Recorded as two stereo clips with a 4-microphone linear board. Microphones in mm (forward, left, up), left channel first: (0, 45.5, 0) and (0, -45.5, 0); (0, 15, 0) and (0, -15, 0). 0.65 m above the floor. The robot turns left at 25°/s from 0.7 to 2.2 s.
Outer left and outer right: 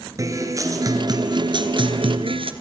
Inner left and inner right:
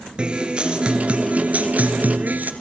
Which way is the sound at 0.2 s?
35° right.